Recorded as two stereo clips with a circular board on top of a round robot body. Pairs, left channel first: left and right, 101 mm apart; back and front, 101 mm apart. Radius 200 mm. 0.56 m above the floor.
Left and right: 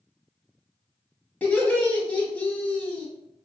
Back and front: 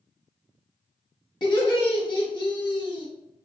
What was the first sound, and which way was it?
Laughter, 160° left.